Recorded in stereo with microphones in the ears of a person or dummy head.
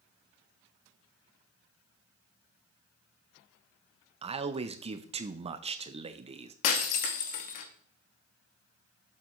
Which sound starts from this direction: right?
A man speaking, at 4.2 s.